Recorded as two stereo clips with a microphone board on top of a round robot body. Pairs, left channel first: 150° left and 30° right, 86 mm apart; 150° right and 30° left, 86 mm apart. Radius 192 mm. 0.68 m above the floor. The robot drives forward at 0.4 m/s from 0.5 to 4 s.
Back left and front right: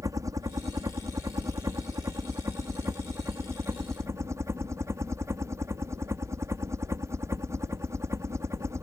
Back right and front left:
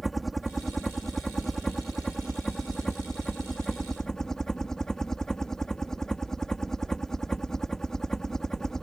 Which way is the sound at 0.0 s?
60° right.